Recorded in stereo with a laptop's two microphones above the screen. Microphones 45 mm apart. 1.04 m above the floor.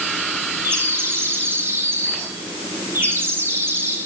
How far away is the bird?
About 9.5 m.